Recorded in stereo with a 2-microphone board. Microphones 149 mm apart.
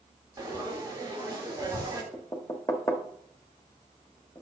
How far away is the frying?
About 1.7 m.